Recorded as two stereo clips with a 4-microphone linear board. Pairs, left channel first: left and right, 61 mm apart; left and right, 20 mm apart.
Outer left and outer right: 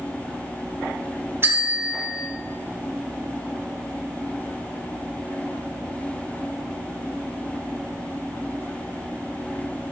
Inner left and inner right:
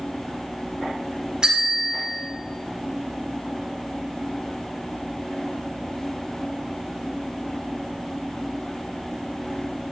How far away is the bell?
About 1.8 m.